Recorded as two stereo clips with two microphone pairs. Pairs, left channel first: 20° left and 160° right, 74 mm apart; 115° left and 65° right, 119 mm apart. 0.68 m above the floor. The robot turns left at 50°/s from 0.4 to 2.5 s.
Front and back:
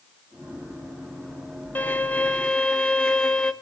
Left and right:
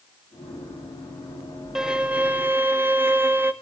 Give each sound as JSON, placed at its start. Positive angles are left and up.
{"t": 1.8, "sound": "a violin", "azimuth_deg": 5, "distance_m": 1.0}